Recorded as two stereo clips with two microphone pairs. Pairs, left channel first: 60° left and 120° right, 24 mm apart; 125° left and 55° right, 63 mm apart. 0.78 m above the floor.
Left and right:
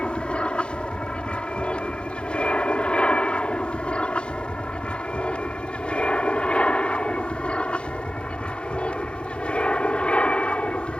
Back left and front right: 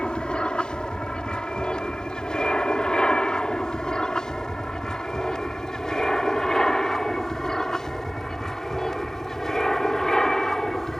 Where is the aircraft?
60° left; by 11.0 s 45° left.